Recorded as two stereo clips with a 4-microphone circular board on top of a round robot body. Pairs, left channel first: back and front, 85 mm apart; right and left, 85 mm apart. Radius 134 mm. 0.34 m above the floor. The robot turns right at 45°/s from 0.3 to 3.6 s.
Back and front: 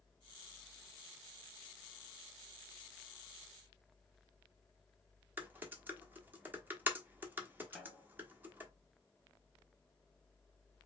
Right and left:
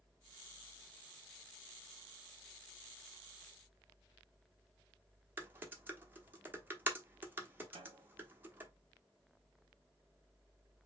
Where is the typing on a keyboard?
45° left, 1.4 m.